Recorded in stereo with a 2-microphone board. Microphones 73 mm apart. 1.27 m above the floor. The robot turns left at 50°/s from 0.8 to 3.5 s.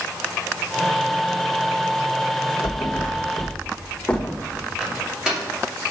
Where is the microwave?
10° right (ahead or behind), 2.5 m.